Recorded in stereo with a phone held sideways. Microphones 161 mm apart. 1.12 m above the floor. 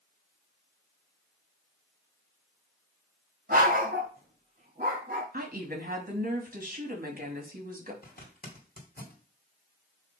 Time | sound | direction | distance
3.5 | a dog barking | 60° right (ahead or behind) | 3 m
5.3 | a woman speaking | 60° right (ahead or behind) | 2.5 m
8.0 | a zipper | 70° left (ahead or behind) | 2 m